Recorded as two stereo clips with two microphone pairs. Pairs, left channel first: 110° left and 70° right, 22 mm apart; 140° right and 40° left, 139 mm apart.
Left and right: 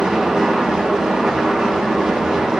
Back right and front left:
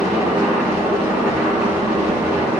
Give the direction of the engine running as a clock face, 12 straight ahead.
1 o'clock.